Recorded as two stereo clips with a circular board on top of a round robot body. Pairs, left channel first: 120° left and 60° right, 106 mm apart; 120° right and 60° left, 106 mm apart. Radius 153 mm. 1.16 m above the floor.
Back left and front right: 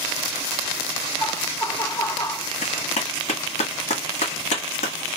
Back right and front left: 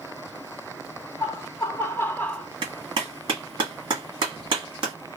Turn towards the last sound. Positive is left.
turn(degrees=105)